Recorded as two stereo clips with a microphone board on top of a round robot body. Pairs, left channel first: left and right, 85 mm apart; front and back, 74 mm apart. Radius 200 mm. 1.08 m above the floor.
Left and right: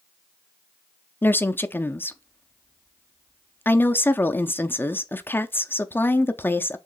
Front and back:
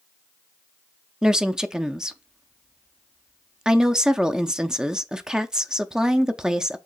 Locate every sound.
1.2 s a woman speaking: 110° left, 0.7 m